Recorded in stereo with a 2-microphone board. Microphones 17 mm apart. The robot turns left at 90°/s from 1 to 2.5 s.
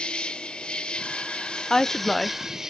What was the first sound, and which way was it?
An insect, 115° left.